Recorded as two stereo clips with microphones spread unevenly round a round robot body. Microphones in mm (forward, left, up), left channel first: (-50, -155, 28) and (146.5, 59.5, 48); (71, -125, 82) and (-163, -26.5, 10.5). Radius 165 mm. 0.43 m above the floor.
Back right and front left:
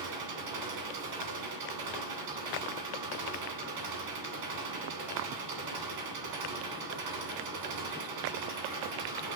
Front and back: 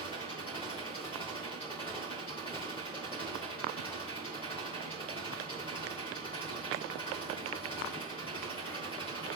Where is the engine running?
55° left, 2.0 m.